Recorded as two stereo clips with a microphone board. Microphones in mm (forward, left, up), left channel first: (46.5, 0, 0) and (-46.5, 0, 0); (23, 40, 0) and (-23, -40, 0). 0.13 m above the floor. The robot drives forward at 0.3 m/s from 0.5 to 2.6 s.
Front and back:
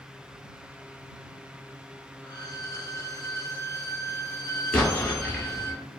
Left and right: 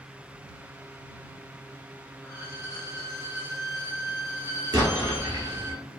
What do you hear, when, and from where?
2.2 s a violin: 20° left, 0.7 m; by 5.7 s 25° left, 0.6 m
4.7 s an explosion: 80° right, 1.0 m